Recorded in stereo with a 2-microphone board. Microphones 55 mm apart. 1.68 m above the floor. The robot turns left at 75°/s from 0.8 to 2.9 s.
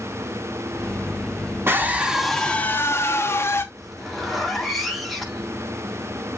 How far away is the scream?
About 2.5 m.